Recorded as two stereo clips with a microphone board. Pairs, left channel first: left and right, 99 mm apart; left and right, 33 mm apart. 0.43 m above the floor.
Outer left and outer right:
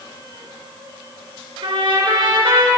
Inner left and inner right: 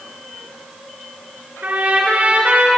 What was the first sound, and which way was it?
A trumpet, 65° right (ahead or behind).